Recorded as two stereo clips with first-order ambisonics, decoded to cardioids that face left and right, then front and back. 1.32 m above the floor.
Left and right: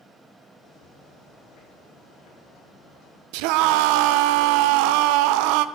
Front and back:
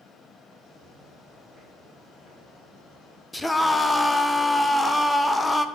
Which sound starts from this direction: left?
Footsteps, at 0.6 s.